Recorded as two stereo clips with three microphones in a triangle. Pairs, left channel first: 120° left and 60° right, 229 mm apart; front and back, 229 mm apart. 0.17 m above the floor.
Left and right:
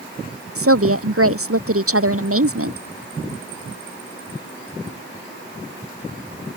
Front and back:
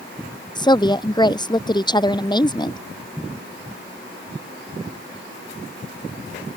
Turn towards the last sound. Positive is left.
turn(degrees=-70)